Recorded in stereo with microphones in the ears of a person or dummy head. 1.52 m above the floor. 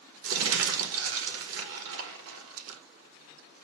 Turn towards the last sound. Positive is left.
turn(degrees=-80)